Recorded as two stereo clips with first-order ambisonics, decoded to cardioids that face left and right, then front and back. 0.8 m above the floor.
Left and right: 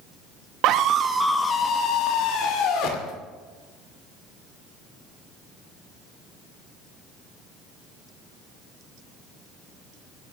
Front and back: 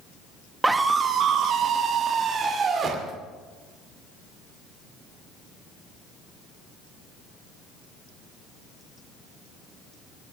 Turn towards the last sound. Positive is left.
turn(degrees=115)